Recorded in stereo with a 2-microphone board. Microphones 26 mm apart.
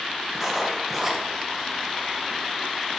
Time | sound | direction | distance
0.3 | writing | 10° right (ahead or behind) | 1.9 m